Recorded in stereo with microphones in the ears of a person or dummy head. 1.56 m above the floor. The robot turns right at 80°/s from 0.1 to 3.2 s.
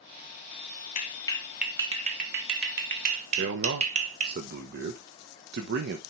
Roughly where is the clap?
Left.